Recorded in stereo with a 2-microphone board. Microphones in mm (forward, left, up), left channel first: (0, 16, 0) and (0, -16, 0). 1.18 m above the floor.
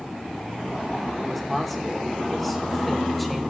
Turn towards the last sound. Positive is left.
turn(degrees=5)  # may be behind; listen again after turning